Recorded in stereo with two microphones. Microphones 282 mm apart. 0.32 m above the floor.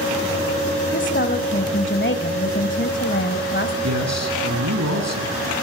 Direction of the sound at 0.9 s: 40° left (ahead or behind).